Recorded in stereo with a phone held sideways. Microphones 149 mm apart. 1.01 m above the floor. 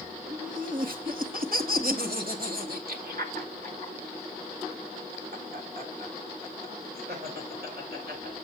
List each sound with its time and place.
0.3 s laughter: 60° right (ahead or behind), 1.5 m; by 8.3 s 75° right (ahead or behind), 5.5 m